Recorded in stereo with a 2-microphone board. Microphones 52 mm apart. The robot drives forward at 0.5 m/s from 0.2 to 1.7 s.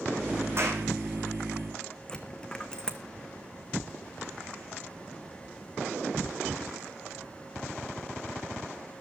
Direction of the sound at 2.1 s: 15° left (ahead or behind).